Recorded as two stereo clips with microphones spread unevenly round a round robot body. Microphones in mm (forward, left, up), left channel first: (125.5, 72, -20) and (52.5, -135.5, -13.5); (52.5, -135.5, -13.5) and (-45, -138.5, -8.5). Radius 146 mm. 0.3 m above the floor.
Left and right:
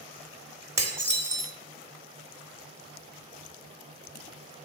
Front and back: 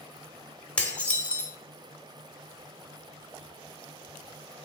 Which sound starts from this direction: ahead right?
Dishes clattering, at 0.8 s.